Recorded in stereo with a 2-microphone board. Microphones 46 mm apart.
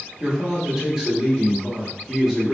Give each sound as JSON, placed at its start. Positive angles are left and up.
{"t": 0.2, "sound": "a man speaking", "side_deg": -10, "distance_m": 0.9}